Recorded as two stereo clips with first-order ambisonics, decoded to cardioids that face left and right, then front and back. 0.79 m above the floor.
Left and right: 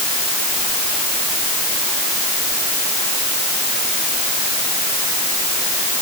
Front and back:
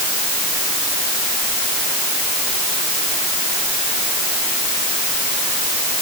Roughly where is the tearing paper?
I don't hear tearing paper.